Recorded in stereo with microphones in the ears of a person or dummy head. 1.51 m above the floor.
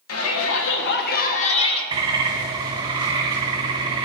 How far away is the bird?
About 1.2 m.